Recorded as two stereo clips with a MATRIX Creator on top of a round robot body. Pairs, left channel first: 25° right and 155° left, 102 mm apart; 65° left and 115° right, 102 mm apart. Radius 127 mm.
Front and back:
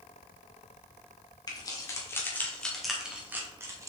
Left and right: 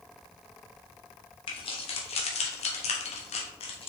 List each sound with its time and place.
1.5 s keys jangling: 30° left, 1.7 m; by 3.9 s 100° left, 1.6 m